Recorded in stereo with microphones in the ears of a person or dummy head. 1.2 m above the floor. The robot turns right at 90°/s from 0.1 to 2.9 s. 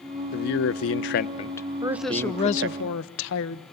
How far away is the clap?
I don't hear a clap.